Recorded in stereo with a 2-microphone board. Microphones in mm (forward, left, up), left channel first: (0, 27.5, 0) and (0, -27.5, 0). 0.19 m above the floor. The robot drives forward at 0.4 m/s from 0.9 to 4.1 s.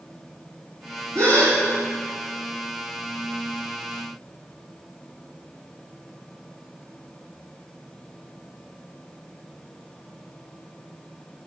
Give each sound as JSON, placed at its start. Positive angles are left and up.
{"t": 1.1, "sound": "a gasp", "side_deg": -70, "distance_m": 4.0}